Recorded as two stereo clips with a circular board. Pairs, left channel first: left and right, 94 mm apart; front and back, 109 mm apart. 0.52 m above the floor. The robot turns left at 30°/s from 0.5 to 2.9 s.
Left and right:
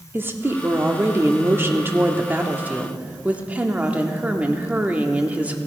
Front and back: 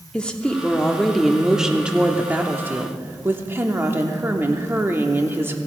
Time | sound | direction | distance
0.1 | a woman speaking | 70° right | 1.0 m